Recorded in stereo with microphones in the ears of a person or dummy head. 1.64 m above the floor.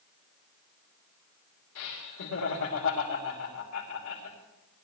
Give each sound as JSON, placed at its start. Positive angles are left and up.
{"t": 1.8, "sound": "laughter", "side_deg": 85, "distance_m": 3.5}